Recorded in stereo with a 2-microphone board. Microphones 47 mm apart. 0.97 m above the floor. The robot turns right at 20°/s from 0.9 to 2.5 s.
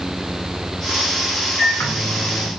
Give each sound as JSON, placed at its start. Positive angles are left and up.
{"t": 1.6, "sound": "a microwave", "side_deg": 65, "distance_m": 0.6}